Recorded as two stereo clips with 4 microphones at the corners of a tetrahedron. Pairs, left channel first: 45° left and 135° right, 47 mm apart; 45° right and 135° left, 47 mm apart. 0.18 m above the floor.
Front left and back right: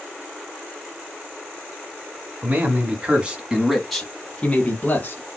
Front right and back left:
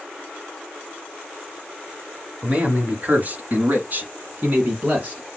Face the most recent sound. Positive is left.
turn(degrees=80)